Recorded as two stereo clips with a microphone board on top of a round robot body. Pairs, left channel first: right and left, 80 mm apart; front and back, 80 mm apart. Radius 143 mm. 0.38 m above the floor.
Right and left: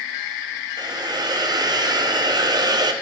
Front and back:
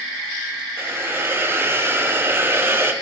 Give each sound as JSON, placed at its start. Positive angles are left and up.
{"t": 0.8, "sound": "a hiss", "azimuth_deg": 120, "distance_m": 1.1}